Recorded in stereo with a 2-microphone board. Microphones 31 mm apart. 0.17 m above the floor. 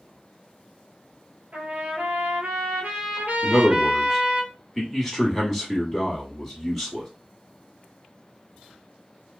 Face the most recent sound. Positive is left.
turn(degrees=0)  # may be behind; listen again after turning